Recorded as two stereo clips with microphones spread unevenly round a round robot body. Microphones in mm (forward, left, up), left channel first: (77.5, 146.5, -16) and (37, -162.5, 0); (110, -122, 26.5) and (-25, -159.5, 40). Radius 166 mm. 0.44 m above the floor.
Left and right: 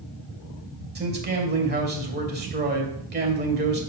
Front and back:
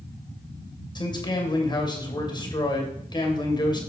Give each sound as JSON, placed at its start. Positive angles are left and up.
{"t": 0.9, "sound": "a man speaking", "azimuth_deg": -40, "distance_m": 2.5}